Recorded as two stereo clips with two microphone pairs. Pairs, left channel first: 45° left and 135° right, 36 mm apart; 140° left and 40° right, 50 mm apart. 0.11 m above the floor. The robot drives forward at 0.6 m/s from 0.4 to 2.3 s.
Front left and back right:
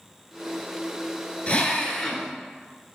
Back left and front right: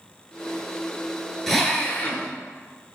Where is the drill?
55° left, 0.7 m; by 2.3 s 125° left, 0.7 m.